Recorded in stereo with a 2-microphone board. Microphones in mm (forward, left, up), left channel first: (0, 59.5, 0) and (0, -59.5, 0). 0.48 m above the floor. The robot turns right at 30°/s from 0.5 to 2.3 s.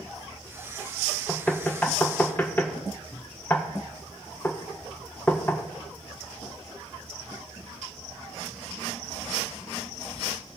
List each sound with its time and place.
1.3 s knocking: 10° left (ahead or behind), 0.6 m; by 5.6 s 15° left (ahead or behind), 0.6 m